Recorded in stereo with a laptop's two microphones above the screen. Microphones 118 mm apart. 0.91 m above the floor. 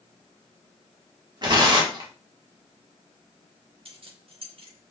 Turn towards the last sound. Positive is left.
turn(degrees=-50)  # may be behind; listen again after turning